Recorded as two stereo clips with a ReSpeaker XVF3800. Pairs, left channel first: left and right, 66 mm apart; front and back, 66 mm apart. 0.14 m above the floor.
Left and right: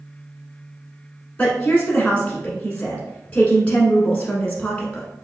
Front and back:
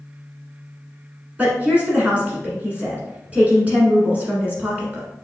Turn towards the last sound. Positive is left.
turn(degrees=135)